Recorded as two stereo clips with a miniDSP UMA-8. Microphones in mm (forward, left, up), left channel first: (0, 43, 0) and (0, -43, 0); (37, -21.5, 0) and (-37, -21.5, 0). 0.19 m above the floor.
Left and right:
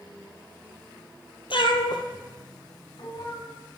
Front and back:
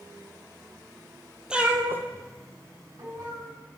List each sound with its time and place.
1.5 s a cat meowing: 100° left, 0.6 m; by 3.5 s 140° left, 2.5 m